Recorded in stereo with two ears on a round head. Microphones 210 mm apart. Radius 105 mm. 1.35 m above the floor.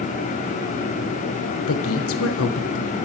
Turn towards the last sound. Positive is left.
turn(degrees=65)  # may be behind; listen again after turning